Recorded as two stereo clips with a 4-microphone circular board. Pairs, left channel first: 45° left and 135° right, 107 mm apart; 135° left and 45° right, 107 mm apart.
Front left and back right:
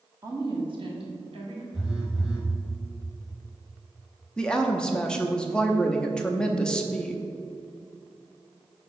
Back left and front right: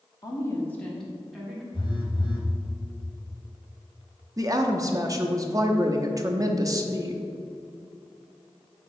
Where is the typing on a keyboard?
No typing on a keyboard in this recording.